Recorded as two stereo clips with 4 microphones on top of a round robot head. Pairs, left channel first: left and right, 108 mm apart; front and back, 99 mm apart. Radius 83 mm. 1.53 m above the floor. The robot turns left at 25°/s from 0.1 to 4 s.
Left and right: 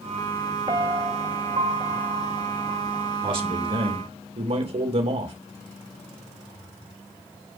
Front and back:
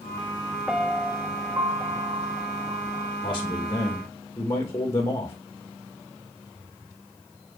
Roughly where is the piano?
Right.